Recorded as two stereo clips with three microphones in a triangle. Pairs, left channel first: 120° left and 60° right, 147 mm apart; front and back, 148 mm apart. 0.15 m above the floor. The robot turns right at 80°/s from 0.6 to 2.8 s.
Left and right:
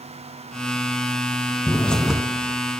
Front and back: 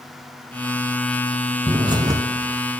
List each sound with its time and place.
1.7 s a bird: straight behind, 0.6 m; by 2.2 s 135° right, 0.6 m